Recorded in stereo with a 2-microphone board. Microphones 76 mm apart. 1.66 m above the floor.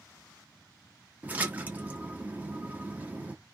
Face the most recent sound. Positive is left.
turn(degrees=-20)  # may be behind; listen again after turning